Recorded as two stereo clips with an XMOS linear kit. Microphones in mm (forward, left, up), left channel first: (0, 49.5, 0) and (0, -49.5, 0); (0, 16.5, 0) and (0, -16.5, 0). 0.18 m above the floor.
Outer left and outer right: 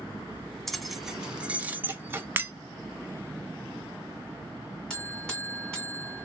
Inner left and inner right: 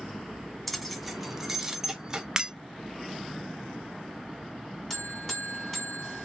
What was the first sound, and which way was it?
Keys jangling, 5° left (ahead or behind).